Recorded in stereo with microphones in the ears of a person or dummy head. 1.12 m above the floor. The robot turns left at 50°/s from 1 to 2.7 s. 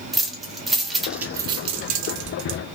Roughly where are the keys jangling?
Centre.